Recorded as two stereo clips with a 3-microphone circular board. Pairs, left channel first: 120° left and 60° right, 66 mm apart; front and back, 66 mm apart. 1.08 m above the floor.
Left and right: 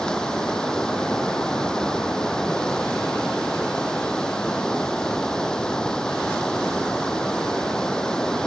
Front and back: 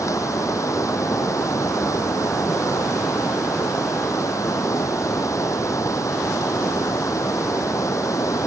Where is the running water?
40° left.